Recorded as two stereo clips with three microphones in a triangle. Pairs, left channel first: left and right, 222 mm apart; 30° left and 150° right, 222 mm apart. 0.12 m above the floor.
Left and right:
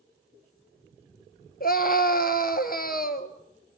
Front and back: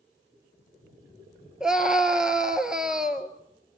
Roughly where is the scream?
Behind left.